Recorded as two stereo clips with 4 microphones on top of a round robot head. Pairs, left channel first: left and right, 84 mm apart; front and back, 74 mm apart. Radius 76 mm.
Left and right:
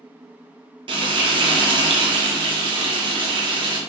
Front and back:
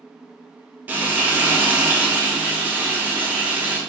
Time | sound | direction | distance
0.9 | frying | 110° right | 0.6 m